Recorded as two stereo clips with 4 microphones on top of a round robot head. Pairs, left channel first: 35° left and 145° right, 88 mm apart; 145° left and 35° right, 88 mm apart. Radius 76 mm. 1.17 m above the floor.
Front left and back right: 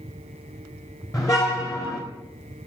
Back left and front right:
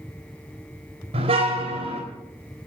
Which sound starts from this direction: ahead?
A car horn, at 1.1 s.